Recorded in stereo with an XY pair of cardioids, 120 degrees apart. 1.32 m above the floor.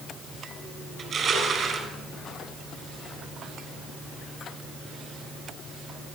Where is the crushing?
40° right, 5.5 m.